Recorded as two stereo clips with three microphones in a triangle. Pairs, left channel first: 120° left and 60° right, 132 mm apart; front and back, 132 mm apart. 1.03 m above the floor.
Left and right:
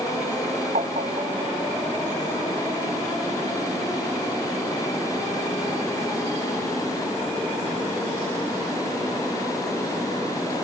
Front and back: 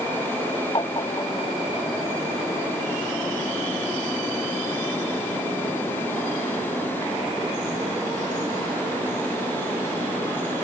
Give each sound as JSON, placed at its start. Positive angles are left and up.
{"t": 0.8, "sound": "tapping", "azimuth_deg": -50}